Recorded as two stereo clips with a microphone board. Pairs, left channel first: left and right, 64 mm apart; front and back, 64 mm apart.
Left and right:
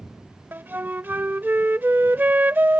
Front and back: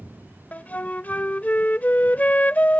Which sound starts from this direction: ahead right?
A flute, at 0.5 s.